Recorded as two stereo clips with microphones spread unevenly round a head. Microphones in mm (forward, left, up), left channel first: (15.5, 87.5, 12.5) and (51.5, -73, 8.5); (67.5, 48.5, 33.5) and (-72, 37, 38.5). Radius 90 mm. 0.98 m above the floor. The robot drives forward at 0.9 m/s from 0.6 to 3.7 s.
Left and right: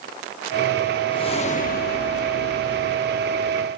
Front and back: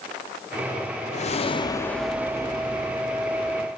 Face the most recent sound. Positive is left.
turn(degrees=155)